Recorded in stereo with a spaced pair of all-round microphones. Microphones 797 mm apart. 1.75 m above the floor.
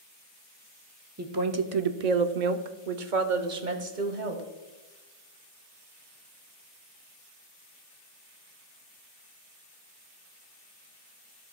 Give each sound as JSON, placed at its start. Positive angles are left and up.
{"t": 1.2, "sound": "a woman speaking", "side_deg": -20, "distance_m": 0.7}